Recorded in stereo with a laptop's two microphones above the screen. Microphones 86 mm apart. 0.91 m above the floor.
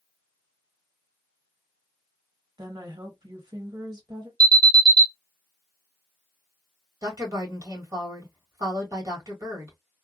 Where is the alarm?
40° right (ahead or behind), 1.9 m.